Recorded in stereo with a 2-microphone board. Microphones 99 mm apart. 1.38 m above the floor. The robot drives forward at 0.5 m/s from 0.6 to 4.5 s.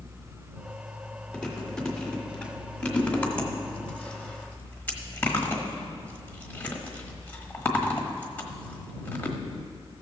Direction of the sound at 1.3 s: 10° left (ahead or behind).